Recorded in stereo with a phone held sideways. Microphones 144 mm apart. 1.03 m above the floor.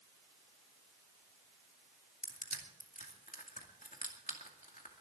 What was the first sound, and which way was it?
Crushing, 75° left (ahead or behind).